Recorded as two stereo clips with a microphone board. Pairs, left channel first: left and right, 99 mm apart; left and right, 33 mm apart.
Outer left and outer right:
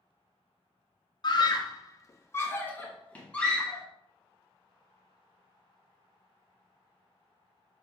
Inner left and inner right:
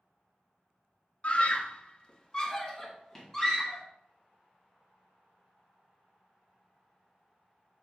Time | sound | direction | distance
1.2 | a scream | 45° left (ahead or behind) | 0.6 m